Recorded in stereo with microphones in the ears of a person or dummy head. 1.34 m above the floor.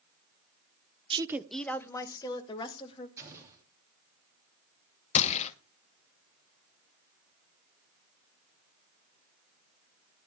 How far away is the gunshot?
About 0.8 m.